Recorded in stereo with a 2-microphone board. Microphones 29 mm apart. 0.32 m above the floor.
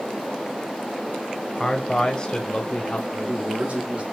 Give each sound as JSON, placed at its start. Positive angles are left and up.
{"t": 1.6, "sound": "a man speaking", "side_deg": 25, "distance_m": 1.6}
{"t": 3.1, "sound": "a man speaking", "side_deg": -50, "distance_m": 2.5}